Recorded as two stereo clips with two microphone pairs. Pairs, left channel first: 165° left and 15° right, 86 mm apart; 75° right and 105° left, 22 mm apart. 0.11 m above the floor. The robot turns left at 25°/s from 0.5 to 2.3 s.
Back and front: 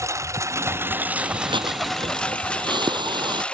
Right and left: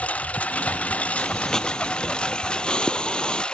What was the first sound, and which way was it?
A lawn mower, 70° right.